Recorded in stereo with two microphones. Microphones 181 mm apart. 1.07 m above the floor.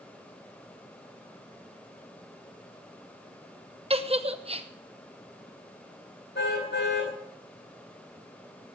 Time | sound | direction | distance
3.9 | a giggle | 35° right (ahead or behind) | 0.9 m
6.3 | a car horn | 85° left | 4 m